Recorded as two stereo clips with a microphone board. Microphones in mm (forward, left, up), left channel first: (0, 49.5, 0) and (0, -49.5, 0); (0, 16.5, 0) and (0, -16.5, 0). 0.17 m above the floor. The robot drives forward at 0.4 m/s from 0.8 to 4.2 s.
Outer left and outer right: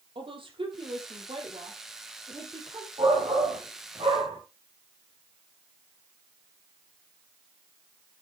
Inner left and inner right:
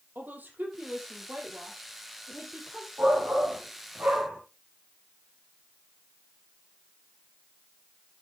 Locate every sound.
0.1 s a woman speaking: 60° right (ahead or behind), 5 m; by 2.9 s 55° right (ahead or behind), 5 m
3.0 s a shout: 70° right (ahead or behind), 6 m; by 4.4 s 65° right (ahead or behind), 6 m